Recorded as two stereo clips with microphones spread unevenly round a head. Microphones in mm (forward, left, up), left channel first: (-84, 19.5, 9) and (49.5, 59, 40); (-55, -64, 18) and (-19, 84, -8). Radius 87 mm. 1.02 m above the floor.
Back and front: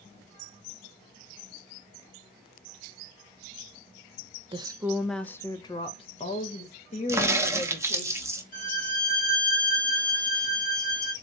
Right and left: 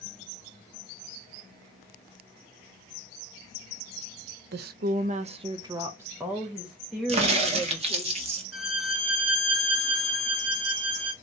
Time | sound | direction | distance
4.5 | a woman speaking | 75° left | 0.6 m
7.1 | a crack | 95° left | 1.1 m
8.5 | a violin | 175° left | 2 m